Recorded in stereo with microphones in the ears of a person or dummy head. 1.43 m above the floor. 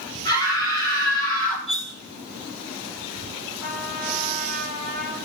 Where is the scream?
20° left (ahead or behind), 5 m.